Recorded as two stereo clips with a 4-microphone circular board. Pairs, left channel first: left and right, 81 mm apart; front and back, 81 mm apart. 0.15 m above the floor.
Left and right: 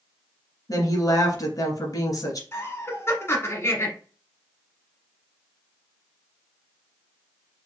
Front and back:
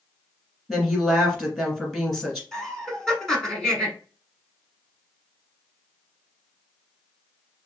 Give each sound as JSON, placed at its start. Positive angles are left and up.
{"t": 0.7, "sound": "a woman speaking", "azimuth_deg": 85, "distance_m": 1.5}
{"t": 2.5, "sound": "laughter", "azimuth_deg": 75, "distance_m": 1.2}